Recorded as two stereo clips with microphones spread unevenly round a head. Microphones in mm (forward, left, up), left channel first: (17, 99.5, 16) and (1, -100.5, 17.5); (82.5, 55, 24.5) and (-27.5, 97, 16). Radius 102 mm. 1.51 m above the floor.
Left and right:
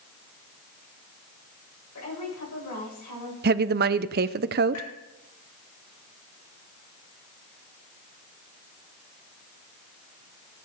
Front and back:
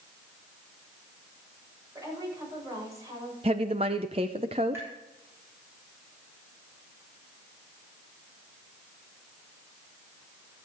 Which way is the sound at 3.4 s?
135° right.